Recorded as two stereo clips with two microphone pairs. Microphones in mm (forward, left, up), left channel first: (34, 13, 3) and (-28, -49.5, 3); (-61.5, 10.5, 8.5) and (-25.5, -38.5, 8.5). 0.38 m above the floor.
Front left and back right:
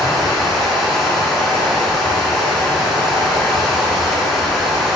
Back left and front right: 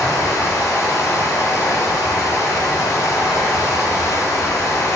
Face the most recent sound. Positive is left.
turn(degrees=135)